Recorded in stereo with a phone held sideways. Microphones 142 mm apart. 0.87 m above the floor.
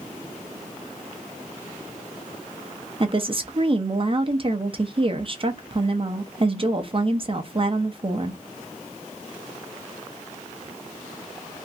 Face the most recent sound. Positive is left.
turn(degrees=-40)  # may be behind; listen again after turning